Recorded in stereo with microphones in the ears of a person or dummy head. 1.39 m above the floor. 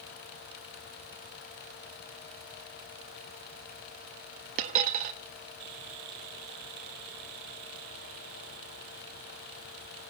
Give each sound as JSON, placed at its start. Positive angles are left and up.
{"t": 4.6, "sound": "a dropped coin", "side_deg": -50, "distance_m": 1.0}